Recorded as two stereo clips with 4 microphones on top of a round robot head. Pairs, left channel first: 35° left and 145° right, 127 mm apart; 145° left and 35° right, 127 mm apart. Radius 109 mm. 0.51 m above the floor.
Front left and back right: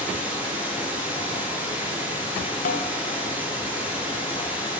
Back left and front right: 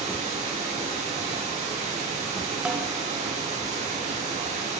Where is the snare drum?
50° left, 1.3 m.